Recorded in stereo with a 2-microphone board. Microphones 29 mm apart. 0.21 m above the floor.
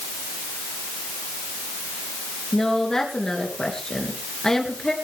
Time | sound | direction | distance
2.5 | a woman speaking | 20° left (ahead or behind) | 3.5 m